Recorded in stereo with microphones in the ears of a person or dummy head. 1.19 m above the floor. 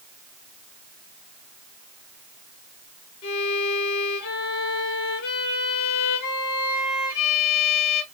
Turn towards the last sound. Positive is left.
turn(degrees=55)  # may be behind; listen again after turning